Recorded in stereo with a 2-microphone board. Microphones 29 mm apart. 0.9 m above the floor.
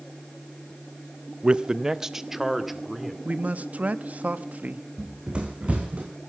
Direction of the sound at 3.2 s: 65° right (ahead or behind).